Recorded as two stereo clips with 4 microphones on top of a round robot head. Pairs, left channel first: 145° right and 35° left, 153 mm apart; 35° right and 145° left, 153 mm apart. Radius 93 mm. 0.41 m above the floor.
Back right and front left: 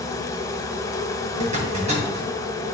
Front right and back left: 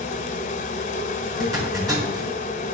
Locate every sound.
0.0 s an insect: 75° right, 0.8 m
1.4 s a zipper: 80° left, 3.5 m